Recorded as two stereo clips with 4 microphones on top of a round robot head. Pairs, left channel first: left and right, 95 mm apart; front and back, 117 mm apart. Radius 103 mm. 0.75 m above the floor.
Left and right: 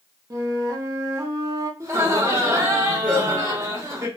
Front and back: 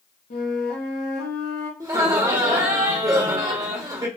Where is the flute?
35° right, 0.7 m.